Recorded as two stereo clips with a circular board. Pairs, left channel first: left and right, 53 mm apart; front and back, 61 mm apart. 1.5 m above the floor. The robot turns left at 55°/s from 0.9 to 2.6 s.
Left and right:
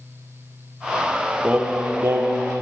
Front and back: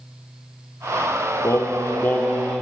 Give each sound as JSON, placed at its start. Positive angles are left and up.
{"t": 1.4, "sound": "singing", "azimuth_deg": -25, "distance_m": 0.8}